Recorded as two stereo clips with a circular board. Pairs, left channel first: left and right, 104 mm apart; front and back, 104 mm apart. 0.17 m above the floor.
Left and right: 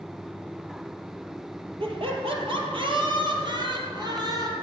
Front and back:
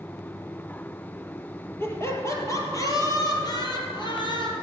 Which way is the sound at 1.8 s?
65° right.